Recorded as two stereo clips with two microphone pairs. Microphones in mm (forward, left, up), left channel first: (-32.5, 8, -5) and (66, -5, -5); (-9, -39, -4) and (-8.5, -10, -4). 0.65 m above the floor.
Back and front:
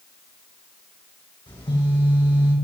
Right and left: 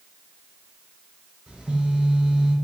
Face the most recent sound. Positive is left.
turn(degrees=145)